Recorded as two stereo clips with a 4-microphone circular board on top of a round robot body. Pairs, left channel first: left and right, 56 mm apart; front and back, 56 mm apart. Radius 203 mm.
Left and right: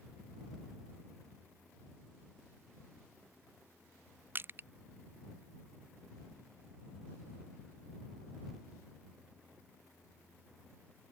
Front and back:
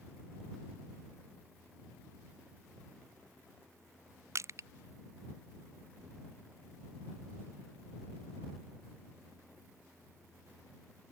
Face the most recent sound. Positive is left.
turn(degrees=-140)